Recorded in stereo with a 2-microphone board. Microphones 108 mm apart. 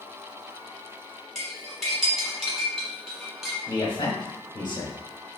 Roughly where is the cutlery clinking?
Centre.